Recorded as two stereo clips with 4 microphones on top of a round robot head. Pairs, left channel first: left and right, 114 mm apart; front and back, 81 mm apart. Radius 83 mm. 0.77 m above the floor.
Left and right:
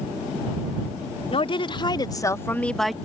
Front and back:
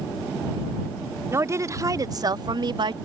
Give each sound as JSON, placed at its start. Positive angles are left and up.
{"t": 1.3, "sound": "a woman speaking", "azimuth_deg": 125}